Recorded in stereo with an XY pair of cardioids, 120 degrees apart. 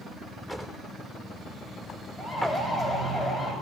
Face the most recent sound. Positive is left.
turn(degrees=35)